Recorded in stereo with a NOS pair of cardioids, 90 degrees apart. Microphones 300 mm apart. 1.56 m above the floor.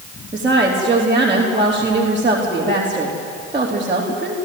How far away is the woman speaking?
About 4 m.